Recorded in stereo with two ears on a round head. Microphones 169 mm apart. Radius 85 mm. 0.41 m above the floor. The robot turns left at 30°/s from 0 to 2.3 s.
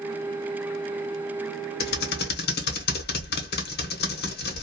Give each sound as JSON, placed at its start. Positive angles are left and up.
{"t": 1.8, "sound": "typing on a keyboard", "side_deg": 55, "distance_m": 0.8}